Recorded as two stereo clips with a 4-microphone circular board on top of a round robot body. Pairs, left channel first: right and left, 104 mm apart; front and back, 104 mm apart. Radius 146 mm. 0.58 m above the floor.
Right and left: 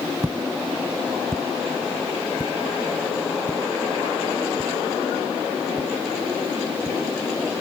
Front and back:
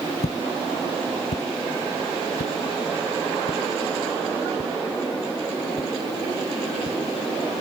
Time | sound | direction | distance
0.2 | footsteps | 20° left | ?